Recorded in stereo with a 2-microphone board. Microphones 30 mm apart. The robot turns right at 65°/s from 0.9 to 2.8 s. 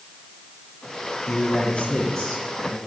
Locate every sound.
1.3 s a man speaking: 110° left, 4 m; by 2.8 s 150° right, 4 m